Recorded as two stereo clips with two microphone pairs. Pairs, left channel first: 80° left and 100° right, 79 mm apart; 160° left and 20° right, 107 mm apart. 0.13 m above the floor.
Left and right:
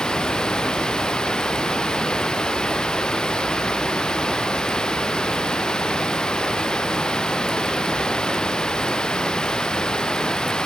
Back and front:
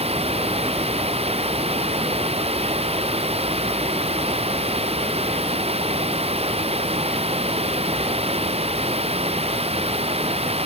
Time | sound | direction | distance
0.0 | running water | straight ahead | ?